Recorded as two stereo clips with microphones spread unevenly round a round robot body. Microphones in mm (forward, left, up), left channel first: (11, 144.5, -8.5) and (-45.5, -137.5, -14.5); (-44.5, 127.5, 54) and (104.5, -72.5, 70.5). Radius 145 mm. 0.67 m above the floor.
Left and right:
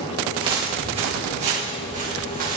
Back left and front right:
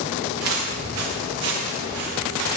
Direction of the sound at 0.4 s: 25° right.